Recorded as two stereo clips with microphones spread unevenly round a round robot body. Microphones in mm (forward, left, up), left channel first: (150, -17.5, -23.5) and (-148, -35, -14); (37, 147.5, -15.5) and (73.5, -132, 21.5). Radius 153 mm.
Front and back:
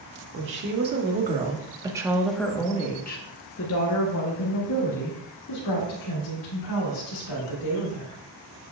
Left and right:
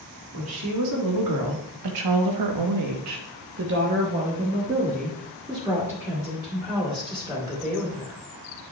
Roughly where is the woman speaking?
Behind right.